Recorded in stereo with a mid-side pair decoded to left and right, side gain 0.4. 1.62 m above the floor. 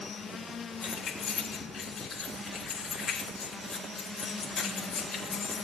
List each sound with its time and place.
0.8 s keys jangling: 60° left, 2.5 m